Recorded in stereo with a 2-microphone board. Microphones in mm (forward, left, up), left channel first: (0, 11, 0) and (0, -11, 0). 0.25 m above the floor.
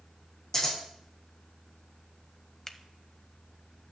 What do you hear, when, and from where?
0.5 s scissors: 30° left (ahead or behind), 6 m
2.7 s a finger snap: 25° left (ahead or behind), 0.8 m